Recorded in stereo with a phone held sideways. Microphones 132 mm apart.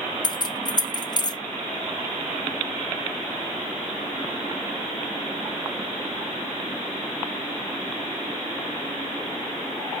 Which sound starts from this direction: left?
Keys jangling, at 0.2 s.